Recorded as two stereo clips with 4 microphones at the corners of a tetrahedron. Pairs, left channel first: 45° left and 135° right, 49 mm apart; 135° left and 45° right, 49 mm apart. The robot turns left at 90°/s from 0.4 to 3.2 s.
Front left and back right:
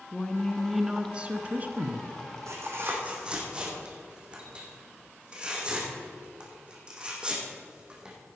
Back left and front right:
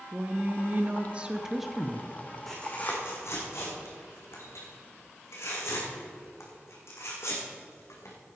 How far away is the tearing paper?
About 3.5 m.